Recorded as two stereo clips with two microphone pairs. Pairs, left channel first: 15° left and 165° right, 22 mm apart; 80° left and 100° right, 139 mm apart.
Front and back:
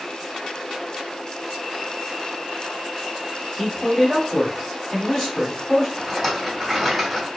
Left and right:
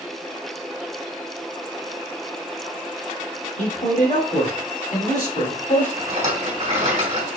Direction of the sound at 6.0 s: 80° right.